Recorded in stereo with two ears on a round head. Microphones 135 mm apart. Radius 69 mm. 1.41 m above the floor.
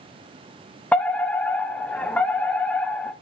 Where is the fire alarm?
10° left (ahead or behind), 0.9 m.